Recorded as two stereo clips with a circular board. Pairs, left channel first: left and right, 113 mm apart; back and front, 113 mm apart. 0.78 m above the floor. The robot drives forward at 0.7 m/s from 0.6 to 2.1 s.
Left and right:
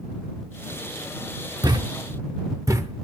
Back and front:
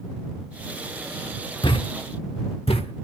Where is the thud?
140° right, 0.9 m; by 3.1 s 150° right, 1.1 m.